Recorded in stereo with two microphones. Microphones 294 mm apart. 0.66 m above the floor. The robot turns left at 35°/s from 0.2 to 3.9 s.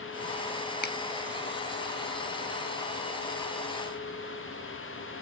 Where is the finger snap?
35° left (ahead or behind), 0.6 m; by 0.9 s 30° left (ahead or behind), 0.6 m.